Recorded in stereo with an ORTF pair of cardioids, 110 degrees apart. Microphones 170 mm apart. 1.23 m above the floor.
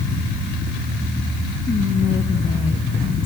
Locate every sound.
1.7 s whispering: 30° left, 1.2 m